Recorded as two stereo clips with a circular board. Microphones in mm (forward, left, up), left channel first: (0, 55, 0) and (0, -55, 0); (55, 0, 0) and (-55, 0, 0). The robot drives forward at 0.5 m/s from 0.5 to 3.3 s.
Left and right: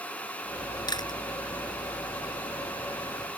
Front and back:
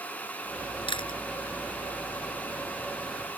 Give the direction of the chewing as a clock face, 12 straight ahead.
11 o'clock.